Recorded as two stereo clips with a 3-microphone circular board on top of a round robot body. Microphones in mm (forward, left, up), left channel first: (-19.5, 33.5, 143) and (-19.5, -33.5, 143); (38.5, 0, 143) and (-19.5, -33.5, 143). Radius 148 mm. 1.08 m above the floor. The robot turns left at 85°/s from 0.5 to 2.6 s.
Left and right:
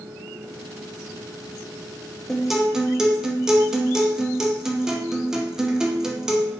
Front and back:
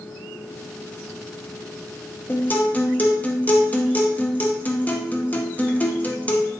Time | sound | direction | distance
2.3 | a guitar | 10° left | 0.8 m